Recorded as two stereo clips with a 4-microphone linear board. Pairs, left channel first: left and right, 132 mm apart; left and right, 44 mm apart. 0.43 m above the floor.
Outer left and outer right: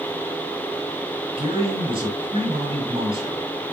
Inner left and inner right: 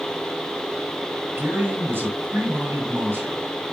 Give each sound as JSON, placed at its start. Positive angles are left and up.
{"t": 1.4, "sound": "a man speaking", "side_deg": -45, "distance_m": 8.5}